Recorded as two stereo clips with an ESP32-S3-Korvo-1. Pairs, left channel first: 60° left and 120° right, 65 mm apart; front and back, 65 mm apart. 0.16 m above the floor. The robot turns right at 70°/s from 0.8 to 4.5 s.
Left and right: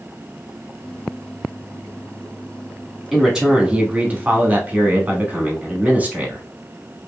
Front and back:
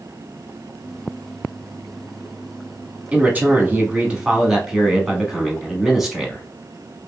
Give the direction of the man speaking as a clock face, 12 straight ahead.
7 o'clock.